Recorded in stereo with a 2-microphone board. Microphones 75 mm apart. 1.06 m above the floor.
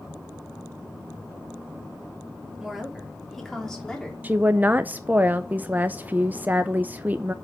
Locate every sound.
2.6 s a woman speaking: 5° right (ahead or behind), 3 m; by 4.1 s 10° left (ahead or behind), 3.5 m
4.2 s a woman speaking: 25° right (ahead or behind), 0.6 m